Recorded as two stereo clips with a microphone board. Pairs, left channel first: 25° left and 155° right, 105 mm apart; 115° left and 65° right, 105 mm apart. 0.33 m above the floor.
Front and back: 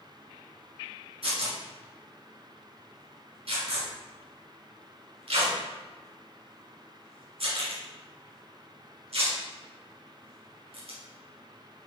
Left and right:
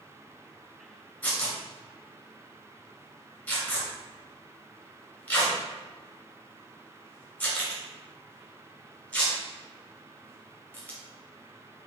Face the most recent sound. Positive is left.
turn(degrees=-175)